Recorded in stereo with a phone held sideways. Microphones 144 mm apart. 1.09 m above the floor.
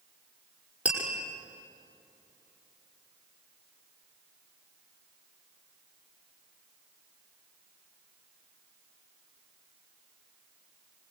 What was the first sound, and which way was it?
Tapping, 10° right (ahead or behind).